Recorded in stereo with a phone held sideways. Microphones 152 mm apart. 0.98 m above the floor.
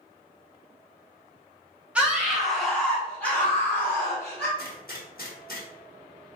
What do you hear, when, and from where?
1.9 s a scream: 5° right (ahead or behind), 1.3 m; by 4.5 s 15° left (ahead or behind), 2.5 m
4.6 s a gunshot: 65° left (ahead or behind), 1.1 m